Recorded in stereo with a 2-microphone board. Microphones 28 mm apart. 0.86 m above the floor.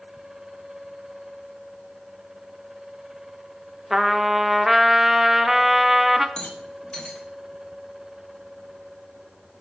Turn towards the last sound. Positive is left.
turn(degrees=30)  # may be behind; listen again after turning